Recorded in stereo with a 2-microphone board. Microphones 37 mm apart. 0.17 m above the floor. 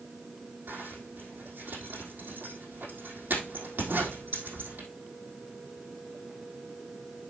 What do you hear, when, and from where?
0.7 s a zipper: 55° right (ahead or behind), 4 m